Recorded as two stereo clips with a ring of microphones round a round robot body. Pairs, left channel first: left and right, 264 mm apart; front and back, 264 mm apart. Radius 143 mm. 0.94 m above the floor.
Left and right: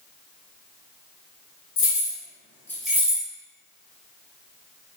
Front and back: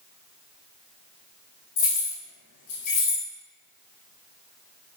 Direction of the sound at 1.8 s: 45° left.